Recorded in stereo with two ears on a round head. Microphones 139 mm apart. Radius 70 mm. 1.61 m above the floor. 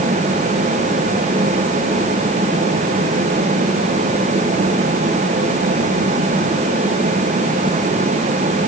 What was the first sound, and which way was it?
Only background noise.